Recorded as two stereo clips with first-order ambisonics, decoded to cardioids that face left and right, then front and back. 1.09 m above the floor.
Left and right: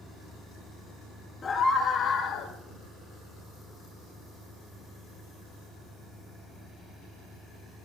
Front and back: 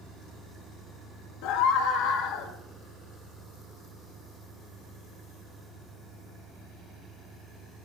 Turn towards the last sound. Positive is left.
turn(degrees=35)